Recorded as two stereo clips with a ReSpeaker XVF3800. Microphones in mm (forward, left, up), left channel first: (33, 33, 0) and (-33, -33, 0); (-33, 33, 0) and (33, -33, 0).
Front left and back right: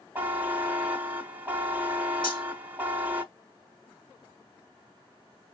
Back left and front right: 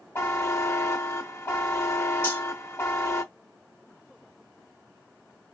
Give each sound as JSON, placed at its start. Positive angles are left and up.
{"t": 0.1, "sound": "a buzzer", "azimuth_deg": 170, "distance_m": 0.7}
{"t": 2.2, "sound": "cutlery clinking", "azimuth_deg": 70, "distance_m": 1.8}